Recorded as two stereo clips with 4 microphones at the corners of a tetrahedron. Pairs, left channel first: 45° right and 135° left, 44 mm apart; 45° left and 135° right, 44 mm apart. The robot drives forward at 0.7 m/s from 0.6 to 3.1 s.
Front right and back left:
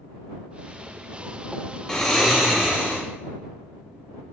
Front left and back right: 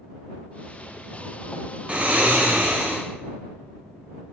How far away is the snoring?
About 0.5 m.